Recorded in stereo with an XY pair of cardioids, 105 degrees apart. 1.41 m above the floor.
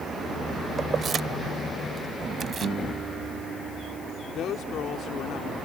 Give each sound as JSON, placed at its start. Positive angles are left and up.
{"t": 0.8, "sound": "keys jangling", "azimuth_deg": -40}
{"t": 2.6, "sound": "a guitar", "azimuth_deg": -55}
{"t": 4.3, "sound": "a woman speaking", "azimuth_deg": 70}